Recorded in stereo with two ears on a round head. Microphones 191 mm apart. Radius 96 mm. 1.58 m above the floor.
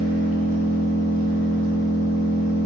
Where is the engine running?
40° right (ahead or behind), 0.9 m.